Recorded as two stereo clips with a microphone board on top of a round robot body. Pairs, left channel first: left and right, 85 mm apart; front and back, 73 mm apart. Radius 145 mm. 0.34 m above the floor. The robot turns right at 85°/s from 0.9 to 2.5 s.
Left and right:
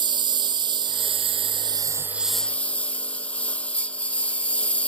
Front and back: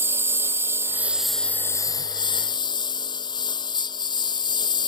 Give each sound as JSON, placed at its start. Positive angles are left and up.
{"t": 0.0, "sound": "a lawn mower", "azimuth_deg": -120}